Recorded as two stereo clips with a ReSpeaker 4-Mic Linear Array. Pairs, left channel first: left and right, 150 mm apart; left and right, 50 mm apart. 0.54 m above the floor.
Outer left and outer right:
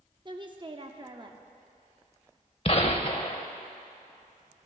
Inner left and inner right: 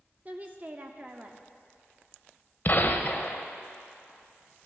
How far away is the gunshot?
About 0.8 m.